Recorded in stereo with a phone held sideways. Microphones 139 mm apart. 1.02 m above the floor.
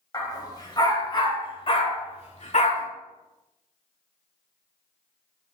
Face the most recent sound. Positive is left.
turn(degrees=60)  # may be behind; listen again after turning